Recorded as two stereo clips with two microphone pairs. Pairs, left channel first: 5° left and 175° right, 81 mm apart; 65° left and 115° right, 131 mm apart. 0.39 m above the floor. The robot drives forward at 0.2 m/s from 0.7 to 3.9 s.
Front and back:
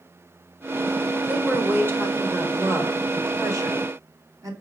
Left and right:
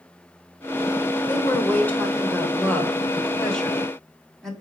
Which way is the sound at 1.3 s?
130° left.